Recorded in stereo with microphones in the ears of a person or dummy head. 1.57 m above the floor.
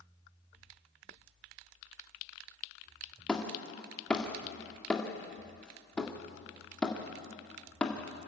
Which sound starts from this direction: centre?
Hammering, at 3.3 s.